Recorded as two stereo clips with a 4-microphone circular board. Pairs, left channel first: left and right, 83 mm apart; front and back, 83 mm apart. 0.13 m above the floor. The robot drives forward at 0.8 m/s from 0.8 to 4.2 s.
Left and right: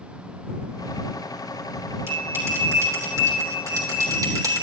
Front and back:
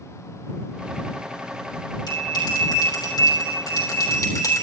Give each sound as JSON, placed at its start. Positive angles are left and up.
{"t": 2.1, "sound": "a bell", "azimuth_deg": -30, "distance_m": 4.0}